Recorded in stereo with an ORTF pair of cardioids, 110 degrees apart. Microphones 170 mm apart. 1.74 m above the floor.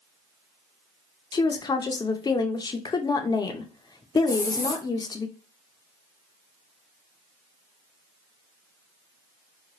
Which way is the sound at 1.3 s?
25° left.